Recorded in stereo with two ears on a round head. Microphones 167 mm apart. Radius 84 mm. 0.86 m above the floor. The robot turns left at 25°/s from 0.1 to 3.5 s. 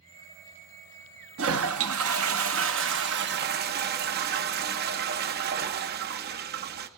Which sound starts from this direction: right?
A toilet flushing, at 1.4 s.